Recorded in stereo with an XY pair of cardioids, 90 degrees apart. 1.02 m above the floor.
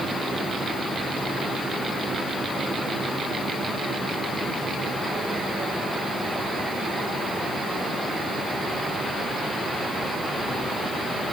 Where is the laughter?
No laughter in this recording.